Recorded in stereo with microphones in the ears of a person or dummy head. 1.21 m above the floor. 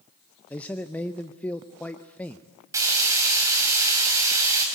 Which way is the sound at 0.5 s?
10° left (ahead or behind).